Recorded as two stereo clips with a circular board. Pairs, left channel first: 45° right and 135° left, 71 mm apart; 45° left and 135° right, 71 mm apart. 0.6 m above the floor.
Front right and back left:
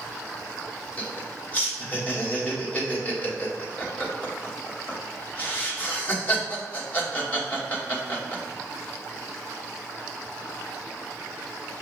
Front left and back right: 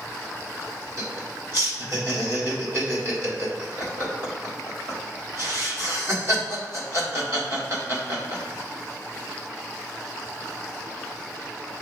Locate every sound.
1.0 s laughter: 100° right, 1.5 m